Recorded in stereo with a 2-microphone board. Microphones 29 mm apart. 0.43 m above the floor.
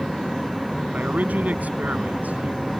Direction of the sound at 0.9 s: 75° right (ahead or behind).